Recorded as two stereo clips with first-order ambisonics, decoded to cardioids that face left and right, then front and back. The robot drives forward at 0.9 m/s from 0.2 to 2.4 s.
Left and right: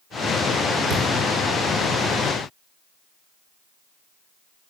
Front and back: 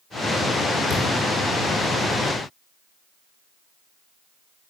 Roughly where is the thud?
Ahead right.